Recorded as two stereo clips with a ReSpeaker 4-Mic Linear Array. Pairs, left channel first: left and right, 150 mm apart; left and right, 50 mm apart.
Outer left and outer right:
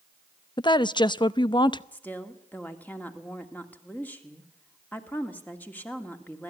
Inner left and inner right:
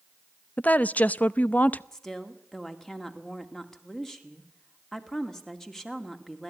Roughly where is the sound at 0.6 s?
Left.